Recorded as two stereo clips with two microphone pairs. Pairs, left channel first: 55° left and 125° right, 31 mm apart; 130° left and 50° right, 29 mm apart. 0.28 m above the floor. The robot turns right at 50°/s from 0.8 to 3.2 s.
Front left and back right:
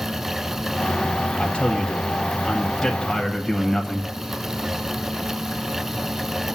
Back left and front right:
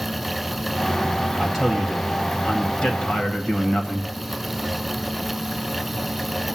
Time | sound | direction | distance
1.4 | a man speaking | 50° left | 1.1 m